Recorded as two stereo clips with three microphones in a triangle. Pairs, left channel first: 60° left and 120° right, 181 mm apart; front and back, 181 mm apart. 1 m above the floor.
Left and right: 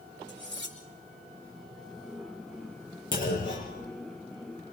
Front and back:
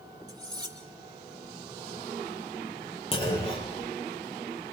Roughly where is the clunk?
Ahead left.